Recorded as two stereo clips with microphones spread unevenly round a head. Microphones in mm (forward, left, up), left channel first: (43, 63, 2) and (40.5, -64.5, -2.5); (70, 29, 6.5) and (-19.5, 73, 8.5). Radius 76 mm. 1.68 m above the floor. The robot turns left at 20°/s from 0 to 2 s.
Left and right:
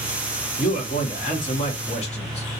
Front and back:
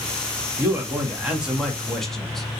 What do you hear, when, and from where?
0.6 s a man speaking: 90° left, 1.1 m; by 2.5 s 60° left, 1.1 m